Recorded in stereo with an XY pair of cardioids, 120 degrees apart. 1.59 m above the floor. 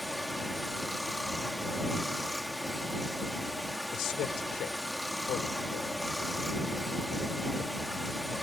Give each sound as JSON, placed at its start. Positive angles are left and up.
{"t": 0.0, "sound": "running water", "azimuth_deg": 5}
{"t": 3.9, "sound": "a man speaking", "azimuth_deg": 70}